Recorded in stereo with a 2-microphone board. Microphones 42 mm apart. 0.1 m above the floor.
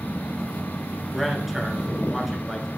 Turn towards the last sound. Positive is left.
turn(degrees=0)  # may be behind; listen again after turning